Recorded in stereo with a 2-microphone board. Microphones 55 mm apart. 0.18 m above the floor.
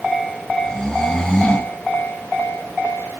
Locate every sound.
0.6 s snoring: 15° left (ahead or behind), 2.5 m